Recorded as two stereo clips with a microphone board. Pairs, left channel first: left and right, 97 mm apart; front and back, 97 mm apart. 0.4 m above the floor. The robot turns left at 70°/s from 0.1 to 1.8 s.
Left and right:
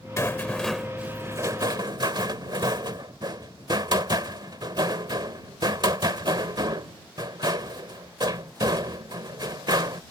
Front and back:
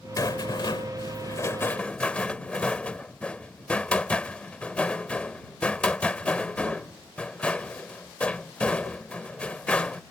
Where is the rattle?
40° left; by 10.0 s 75° right.